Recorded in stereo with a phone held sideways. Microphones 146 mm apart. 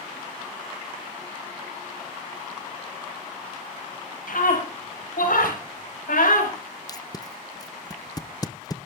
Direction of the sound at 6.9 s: 25° left (ahead or behind).